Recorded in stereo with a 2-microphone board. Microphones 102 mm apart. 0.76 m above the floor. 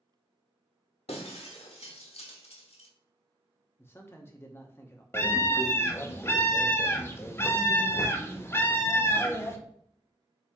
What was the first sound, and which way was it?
Breaking glass, 85° left.